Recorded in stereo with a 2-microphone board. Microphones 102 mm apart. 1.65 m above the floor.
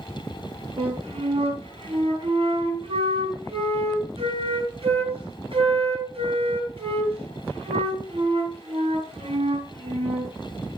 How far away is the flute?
About 4.5 m.